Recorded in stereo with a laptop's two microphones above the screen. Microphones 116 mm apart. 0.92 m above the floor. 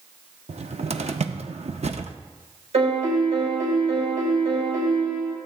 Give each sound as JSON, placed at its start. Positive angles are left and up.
{"t": 0.5, "sound": "a cupboard door", "side_deg": -70, "distance_m": 0.6}
{"t": 2.7, "sound": "a piano", "side_deg": -65, "distance_m": 4.0}